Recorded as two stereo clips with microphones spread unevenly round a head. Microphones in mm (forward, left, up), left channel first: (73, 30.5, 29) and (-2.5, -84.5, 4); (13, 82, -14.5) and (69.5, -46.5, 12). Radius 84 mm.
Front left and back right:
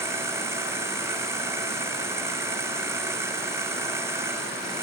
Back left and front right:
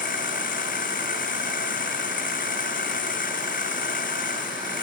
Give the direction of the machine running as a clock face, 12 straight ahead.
7 o'clock.